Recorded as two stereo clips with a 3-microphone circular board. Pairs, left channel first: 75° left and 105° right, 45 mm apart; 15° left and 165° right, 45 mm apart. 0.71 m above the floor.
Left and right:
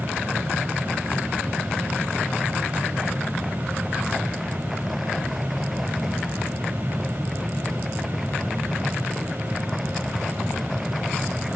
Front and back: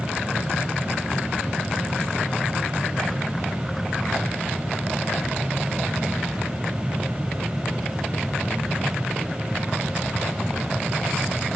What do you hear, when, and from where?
Only background noise.